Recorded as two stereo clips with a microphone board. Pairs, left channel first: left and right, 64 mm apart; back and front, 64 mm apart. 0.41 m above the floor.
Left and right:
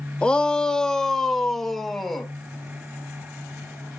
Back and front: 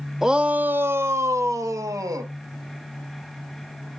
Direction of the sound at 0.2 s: 60° left.